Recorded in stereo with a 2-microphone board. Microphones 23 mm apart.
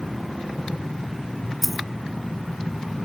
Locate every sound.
1.6 s a dropped coin: 5° right (ahead or behind)